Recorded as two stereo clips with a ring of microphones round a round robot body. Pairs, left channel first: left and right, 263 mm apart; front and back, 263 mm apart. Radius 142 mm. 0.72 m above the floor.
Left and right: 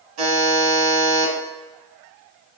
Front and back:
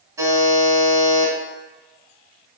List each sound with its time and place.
0.2 s a buzzer: 105° right, 1.2 m